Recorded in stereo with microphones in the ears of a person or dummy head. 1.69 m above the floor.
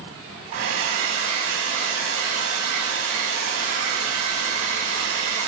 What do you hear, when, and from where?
0.5 s a hair dryer: 65° right (ahead or behind), 6.5 m